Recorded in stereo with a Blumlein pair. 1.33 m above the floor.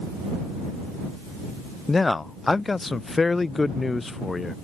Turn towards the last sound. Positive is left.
turn(degrees=10)